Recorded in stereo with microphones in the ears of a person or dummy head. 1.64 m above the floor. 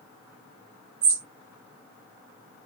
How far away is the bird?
About 0.5 m.